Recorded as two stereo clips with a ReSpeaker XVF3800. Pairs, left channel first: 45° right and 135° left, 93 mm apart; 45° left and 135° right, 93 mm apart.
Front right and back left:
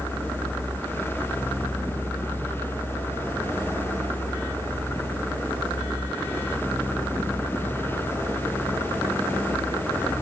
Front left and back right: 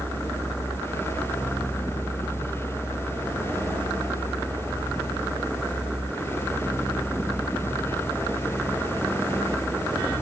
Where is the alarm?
I don't hear an alarm.